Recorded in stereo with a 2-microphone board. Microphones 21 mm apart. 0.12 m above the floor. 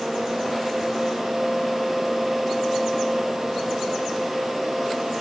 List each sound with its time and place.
Only background noise.